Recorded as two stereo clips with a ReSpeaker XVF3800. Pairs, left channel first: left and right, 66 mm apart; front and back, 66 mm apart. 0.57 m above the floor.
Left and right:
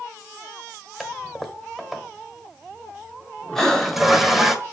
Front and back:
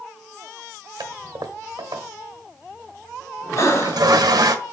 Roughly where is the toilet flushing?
Behind.